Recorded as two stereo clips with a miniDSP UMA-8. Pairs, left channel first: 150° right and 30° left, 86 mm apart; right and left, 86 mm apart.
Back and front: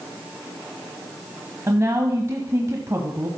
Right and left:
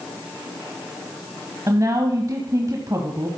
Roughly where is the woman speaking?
Left.